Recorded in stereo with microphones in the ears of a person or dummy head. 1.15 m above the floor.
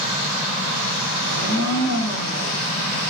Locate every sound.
1.2 s a blender: 70° right (ahead or behind), 1.0 m